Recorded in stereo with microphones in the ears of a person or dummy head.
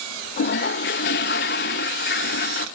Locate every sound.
0.4 s a toilet flushing: 45° left (ahead or behind), 0.7 m